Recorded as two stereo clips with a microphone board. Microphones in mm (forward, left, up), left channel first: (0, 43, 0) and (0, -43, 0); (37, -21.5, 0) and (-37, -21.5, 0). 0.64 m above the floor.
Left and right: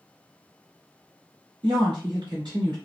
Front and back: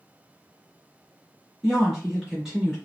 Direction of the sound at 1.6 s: 95° right.